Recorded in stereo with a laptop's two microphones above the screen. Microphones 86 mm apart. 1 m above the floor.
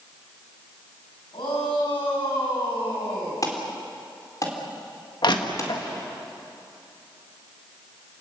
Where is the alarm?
45° left (ahead or behind), 4.5 m.